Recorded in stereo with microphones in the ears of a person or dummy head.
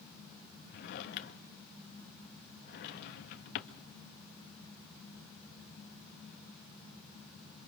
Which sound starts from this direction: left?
A drawer, at 0.7 s.